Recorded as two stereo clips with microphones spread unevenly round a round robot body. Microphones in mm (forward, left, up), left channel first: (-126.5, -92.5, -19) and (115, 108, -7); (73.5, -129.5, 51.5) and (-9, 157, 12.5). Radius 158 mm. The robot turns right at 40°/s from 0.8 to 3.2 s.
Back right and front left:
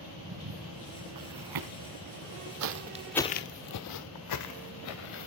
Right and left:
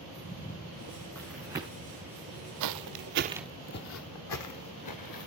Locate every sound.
0.2 s footsteps: 10° right, 3.5 m; by 5.3 s 100° right, 2 m